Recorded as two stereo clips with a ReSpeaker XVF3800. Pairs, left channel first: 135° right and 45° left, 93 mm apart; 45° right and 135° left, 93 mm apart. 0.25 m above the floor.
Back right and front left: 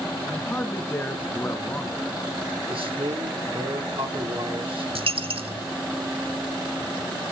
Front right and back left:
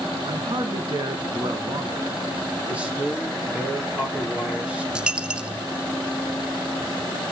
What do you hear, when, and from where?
0.3 s a man speaking: 160° left, 3 m
2.7 s a man speaking: 60° left, 6 m
5.0 s a dropped coin: 55° left, 0.7 m